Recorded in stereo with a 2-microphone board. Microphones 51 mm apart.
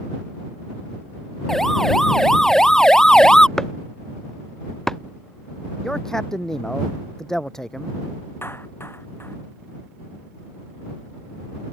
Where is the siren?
10° left (ahead or behind); by 3.5 s 15° left (ahead or behind).